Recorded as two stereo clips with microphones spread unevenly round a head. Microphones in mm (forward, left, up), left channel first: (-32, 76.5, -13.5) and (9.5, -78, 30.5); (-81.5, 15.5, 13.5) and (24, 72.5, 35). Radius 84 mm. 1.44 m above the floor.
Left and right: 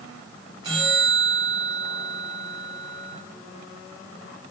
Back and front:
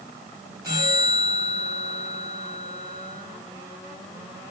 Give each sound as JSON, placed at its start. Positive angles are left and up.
{"t": 0.6, "sound": "a bell", "azimuth_deg": -25, "distance_m": 2.0}